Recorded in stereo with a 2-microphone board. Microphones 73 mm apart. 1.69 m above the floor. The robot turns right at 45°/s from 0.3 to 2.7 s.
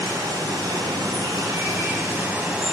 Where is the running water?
115° right, 3 m; by 2.7 s 10° right, 3 m.